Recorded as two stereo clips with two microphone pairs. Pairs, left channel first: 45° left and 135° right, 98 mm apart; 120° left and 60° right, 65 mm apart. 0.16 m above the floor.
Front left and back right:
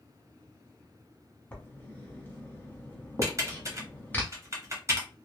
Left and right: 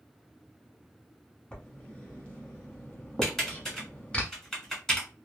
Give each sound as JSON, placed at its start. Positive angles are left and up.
{"t": 1.5, "sound": "writing", "azimuth_deg": 85, "distance_m": 1.0}
{"t": 3.2, "sound": "typing on a keyboard", "azimuth_deg": -160, "distance_m": 1.4}